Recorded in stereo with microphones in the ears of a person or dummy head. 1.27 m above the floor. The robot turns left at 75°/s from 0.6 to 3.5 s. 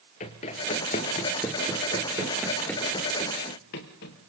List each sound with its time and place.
0.2 s running footsteps: 30° left (ahead or behind), 1.5 m; by 4.3 s 50° left (ahead or behind), 1.9 m